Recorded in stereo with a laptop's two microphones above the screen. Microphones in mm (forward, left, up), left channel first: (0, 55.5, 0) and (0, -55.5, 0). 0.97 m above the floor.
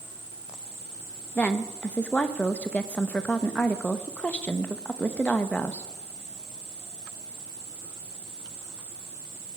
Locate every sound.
1.4 s a woman speaking: 15° left (ahead or behind), 0.8 m